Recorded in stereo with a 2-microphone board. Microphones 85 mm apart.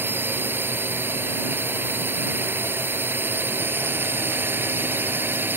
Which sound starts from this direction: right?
A drone, at 0.0 s.